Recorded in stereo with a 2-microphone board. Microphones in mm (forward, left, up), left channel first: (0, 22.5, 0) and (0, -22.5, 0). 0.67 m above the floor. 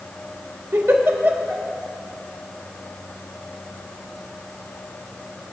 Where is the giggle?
60° right (ahead or behind), 1.3 m.